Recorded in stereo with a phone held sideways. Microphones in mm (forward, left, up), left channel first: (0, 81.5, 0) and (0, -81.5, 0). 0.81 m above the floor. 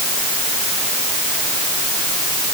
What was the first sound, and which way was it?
Only background noise.